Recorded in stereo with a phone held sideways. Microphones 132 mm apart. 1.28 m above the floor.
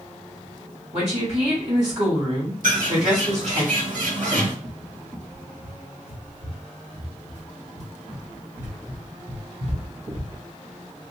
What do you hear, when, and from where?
0.9 s a woman speaking: 55° right (ahead or behind), 2.5 m
2.6 s a bird: 80° right, 1.6 m
4.6 s a cupboard door: 65° right (ahead or behind), 1.3 m